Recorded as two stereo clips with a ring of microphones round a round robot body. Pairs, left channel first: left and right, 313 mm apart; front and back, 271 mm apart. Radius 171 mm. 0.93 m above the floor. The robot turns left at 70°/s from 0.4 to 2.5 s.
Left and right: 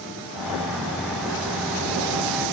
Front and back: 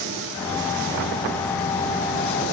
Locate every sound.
Only background noise.